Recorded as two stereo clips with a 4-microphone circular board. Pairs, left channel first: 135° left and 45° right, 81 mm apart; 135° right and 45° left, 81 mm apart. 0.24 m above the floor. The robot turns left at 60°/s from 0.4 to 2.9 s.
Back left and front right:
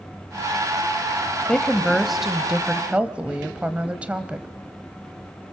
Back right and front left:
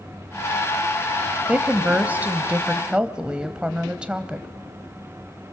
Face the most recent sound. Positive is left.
turn(degrees=-5)